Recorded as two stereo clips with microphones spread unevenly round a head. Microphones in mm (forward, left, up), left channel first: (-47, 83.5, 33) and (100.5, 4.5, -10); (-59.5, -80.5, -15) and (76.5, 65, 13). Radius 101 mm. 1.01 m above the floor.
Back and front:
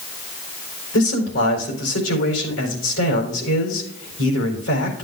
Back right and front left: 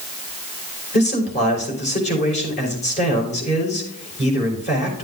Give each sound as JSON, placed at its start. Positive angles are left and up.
{"t": 0.9, "sound": "a man speaking", "azimuth_deg": 170, "distance_m": 4.0}